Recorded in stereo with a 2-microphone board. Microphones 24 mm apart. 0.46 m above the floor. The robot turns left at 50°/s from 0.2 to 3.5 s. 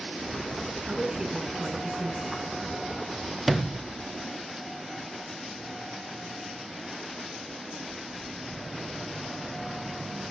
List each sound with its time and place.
0.9 s a woman speaking: 150° right, 3 m; by 2.4 s 135° left, 3 m
3.5 s a sliding door: 5° right (ahead or behind), 0.6 m